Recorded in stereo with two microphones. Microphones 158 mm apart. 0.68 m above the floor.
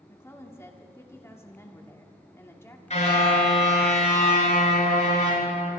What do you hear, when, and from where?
0.1 s a woman speaking: 15° left (ahead or behind), 1.6 m
2.9 s a car horn: 45° left (ahead or behind), 6.5 m